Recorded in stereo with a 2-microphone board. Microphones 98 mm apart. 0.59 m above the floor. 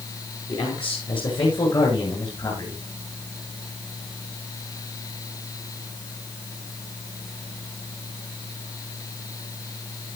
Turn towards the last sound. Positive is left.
turn(degrees=50)  # may be behind; listen again after turning